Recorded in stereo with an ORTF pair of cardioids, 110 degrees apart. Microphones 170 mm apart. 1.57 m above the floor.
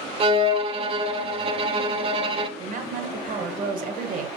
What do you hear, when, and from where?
0.2 s a violin: 35° right, 0.5 m
2.6 s a woman speaking: 50° right, 1.0 m